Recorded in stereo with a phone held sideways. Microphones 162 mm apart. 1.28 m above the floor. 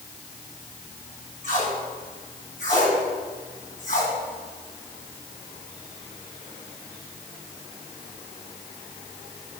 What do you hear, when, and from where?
1.4 s tape being pulled: 55° left (ahead or behind), 3 m